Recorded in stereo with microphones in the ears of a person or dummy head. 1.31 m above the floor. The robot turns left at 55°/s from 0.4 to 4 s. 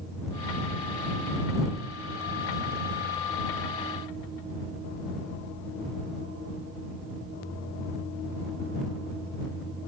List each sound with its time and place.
Only background noise.